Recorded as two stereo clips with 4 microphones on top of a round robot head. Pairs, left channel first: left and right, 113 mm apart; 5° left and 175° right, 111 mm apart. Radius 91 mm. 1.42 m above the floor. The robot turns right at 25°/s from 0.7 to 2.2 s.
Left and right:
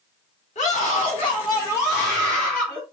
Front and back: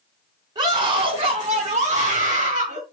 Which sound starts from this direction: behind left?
A scream, at 0.6 s.